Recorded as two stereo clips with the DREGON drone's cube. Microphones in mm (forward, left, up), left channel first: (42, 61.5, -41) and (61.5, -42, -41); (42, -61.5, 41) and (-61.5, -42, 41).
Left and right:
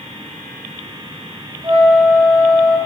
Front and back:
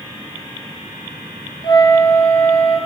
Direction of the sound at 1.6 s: 50° right.